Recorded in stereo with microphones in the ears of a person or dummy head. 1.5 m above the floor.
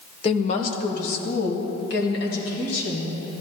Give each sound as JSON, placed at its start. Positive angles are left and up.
{"t": 0.2, "sound": "a woman speaking", "side_deg": 35, "distance_m": 0.9}